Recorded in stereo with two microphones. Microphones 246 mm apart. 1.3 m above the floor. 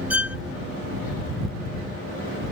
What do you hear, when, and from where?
0.1 s a violin: 5° right (ahead or behind)